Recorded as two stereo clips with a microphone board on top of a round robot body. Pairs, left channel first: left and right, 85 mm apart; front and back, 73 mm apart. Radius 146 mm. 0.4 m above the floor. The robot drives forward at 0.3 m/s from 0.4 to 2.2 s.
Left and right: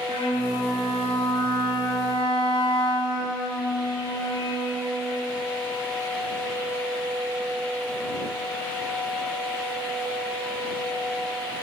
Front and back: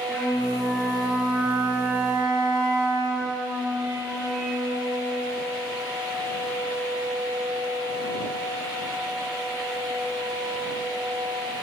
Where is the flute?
70° left, 0.5 m; by 5.2 s 130° left, 0.6 m.